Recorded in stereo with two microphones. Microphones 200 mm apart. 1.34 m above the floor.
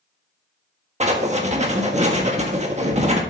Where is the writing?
35° right (ahead or behind), 1.5 m.